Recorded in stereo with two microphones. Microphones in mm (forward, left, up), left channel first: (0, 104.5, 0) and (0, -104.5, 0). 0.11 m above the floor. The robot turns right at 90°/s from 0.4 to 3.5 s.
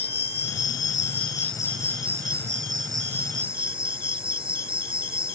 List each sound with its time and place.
0.0 s an insect: 55° left; by 5.4 s 25° right